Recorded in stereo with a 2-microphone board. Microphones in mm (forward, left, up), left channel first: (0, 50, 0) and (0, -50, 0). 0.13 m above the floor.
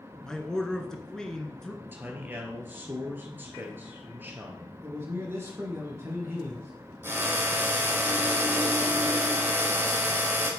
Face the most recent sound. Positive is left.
turn(degrees=-25)  # may be behind; listen again after turning